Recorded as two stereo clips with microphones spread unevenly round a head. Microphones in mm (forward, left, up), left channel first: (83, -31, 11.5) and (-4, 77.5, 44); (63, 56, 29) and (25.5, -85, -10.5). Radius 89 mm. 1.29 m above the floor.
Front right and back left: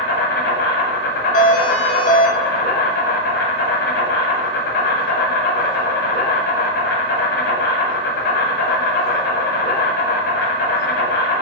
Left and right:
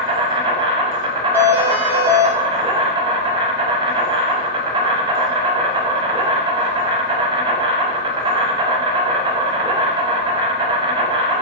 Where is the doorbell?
30° right, 0.9 m.